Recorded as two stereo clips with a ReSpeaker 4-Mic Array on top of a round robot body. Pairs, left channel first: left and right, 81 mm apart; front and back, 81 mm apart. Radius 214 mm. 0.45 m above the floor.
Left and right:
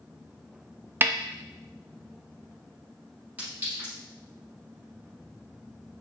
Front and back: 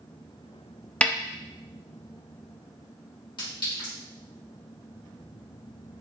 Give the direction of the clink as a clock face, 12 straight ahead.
1 o'clock.